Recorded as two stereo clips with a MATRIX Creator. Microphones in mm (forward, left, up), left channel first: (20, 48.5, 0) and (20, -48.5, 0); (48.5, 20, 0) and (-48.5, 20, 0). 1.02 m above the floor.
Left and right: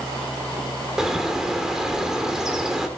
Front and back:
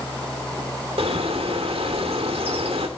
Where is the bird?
175° right, 2.5 m.